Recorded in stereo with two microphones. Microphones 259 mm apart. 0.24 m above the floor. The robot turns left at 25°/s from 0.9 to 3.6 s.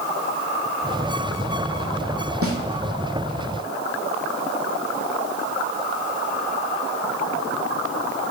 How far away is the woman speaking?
No woman speaking in this recording.